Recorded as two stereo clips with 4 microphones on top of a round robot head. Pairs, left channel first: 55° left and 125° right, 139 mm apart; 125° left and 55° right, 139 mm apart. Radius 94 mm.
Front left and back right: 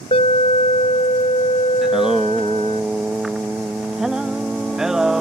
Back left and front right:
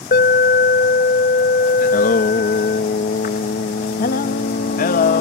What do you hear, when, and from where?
0.1 s an alarm: 105° left
1.8 s singing: 145° left